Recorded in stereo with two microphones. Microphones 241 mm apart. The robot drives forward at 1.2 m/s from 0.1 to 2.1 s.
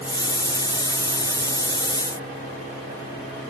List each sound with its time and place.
Only background noise.